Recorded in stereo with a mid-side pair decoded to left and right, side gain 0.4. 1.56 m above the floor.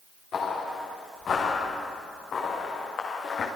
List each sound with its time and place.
0.3 s footsteps: 65° left, 6 m